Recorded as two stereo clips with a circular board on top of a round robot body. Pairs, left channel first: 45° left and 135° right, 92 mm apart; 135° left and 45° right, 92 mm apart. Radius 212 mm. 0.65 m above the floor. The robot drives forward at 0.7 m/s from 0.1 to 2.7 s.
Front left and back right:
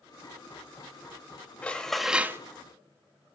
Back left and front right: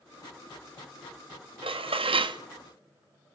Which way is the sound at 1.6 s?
30° right.